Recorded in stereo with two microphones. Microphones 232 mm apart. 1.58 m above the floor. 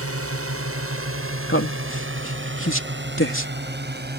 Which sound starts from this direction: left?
A man speaking, at 1.5 s.